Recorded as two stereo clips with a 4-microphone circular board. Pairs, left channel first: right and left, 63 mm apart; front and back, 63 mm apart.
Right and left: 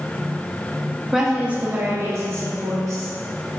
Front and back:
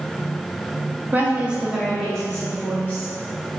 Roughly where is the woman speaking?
Behind.